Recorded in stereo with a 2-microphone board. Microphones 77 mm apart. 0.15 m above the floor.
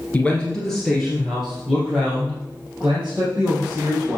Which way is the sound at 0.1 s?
20° left (ahead or behind).